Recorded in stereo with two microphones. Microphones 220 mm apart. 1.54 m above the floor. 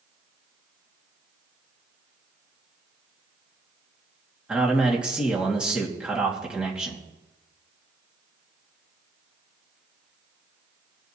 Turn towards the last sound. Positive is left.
turn(degrees=-5)  # may be behind; listen again after turning